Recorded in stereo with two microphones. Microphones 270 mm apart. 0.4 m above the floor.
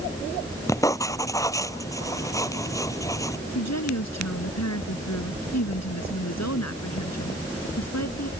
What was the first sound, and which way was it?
Writing, 10° left (ahead or behind).